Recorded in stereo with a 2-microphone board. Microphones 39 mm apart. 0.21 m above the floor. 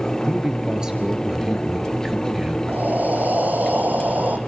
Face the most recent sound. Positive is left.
turn(degrees=-45)  # may be behind; listen again after turning